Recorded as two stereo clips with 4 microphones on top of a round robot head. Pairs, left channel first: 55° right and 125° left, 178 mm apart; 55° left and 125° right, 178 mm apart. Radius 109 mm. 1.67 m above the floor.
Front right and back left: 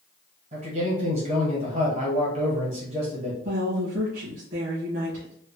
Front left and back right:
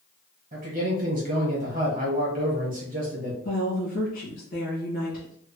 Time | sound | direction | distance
0.5 | a man speaking | 175° left | 1.1 m
3.4 | a woman speaking | 95° left | 1.9 m